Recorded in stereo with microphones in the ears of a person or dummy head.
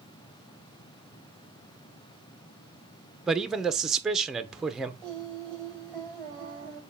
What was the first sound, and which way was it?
A man speaking, 5° right (ahead or behind).